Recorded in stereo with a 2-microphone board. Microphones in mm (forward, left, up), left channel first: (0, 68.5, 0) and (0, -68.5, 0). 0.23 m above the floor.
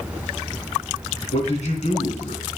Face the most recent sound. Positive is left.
turn(degrees=55)  # may be behind; listen again after turning